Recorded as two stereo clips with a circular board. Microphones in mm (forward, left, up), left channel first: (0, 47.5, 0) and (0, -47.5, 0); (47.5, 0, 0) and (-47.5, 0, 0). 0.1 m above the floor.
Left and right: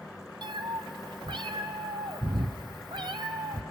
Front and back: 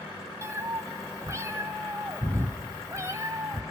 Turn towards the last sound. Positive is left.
turn(degrees=-125)